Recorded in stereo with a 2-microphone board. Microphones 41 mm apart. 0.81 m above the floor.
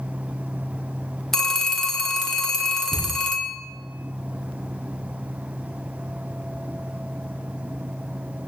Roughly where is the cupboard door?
Left.